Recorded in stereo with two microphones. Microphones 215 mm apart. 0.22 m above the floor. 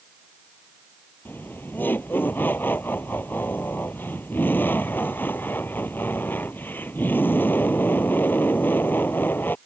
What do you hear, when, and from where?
1.2 s laughter: 10° left (ahead or behind)